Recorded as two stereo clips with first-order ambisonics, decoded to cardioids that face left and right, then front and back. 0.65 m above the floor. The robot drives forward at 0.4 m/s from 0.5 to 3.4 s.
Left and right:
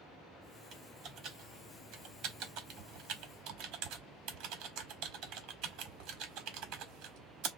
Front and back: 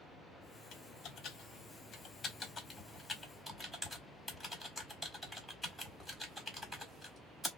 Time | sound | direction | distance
0.7 | typing on a keyboard | 40° right | 1.3 m